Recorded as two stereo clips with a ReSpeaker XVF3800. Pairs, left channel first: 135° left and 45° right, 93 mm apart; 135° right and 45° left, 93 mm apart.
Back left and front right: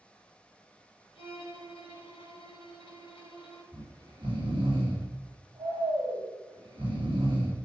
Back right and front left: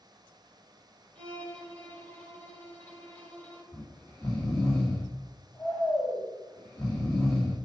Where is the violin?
150° left, 3.5 m.